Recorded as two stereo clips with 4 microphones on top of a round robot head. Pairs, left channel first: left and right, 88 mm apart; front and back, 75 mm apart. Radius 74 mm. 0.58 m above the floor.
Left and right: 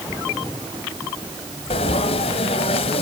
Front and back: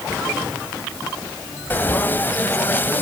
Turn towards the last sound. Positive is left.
turn(degrees=65)